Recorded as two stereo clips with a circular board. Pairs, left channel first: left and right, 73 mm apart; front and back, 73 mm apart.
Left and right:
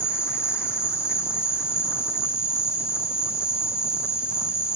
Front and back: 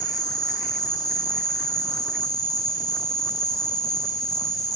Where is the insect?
35° left, 6.5 m.